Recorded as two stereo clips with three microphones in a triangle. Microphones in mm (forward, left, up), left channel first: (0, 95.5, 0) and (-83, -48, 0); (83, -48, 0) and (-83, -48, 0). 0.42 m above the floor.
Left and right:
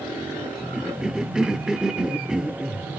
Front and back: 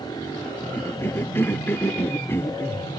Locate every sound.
0.7 s a cough: 45° right, 0.8 m